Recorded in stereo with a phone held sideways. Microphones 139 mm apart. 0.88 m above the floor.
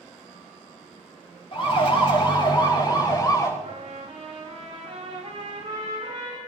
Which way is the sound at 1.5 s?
45° left (ahead or behind).